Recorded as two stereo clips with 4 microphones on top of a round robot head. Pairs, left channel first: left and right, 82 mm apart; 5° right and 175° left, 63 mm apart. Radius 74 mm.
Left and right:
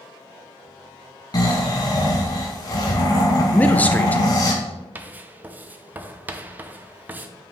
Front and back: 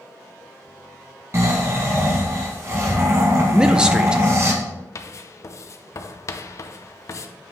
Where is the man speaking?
120° left, 0.5 m.